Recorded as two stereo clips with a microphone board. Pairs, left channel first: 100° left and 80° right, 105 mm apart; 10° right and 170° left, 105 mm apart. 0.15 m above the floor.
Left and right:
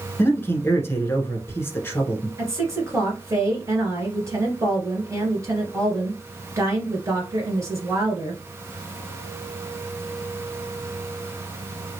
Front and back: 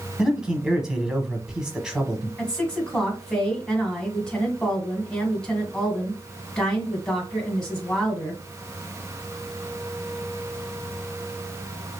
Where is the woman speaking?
90° right, 1.9 m.